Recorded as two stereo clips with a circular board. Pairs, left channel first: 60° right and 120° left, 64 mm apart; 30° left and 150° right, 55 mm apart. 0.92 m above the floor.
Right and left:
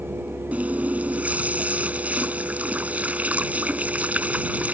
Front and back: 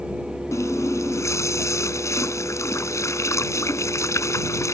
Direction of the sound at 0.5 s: 50° left.